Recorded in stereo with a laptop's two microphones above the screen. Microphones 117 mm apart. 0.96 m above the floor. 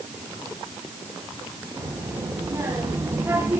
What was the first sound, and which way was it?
A child speaking, 30° right (ahead or behind).